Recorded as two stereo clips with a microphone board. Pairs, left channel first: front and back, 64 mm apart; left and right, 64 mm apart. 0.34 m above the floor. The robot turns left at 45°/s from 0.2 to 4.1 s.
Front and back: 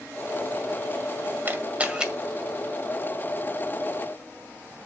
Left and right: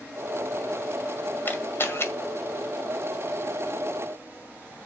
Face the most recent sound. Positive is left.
turn(degrees=15)